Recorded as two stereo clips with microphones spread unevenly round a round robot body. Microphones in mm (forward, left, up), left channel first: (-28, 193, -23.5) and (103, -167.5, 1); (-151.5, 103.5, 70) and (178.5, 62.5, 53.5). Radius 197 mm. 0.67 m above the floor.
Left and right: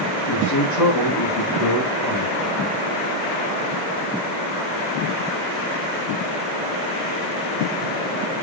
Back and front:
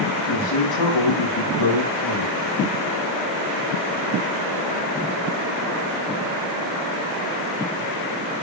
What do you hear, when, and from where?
0.3 s a man speaking: 160° left, 5.5 m; by 2.6 s 155° left, 4 m